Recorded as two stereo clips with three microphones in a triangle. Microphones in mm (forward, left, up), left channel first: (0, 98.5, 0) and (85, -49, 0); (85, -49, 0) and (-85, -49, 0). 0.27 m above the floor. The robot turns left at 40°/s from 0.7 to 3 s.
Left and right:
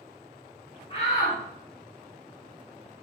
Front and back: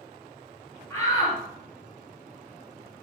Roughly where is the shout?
Left.